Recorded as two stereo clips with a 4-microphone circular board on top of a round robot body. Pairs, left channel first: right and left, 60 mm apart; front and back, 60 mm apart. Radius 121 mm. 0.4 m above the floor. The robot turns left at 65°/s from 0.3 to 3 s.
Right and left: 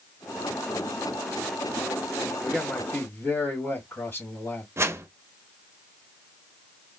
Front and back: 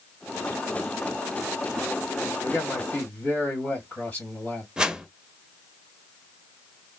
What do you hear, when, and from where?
2.4 s a man speaking: 10° right, 1.9 m; by 4.7 s 45° right, 1.9 m
4.8 s a whoosh: 110° left, 0.7 m